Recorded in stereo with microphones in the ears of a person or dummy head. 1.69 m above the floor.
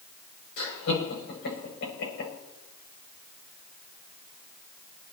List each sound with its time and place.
0.6 s laughter: 60° left (ahead or behind), 8 m